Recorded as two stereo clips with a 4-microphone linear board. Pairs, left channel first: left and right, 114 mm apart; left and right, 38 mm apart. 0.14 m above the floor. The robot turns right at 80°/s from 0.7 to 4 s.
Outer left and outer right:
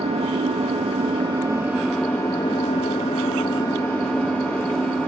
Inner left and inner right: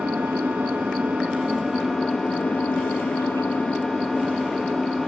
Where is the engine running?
95° right, 1.9 m; by 5.1 s 170° left, 1.9 m.